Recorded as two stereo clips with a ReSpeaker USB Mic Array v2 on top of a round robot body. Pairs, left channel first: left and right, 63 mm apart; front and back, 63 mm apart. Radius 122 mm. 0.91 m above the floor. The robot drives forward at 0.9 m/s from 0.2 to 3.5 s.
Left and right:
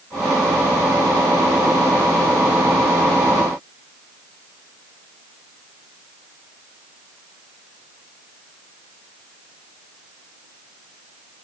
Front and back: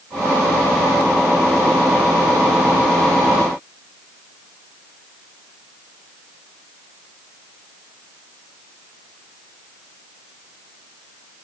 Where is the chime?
I don't hear a chime.